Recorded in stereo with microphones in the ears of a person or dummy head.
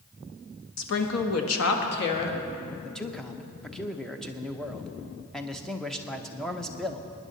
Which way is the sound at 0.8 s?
65° left (ahead or behind).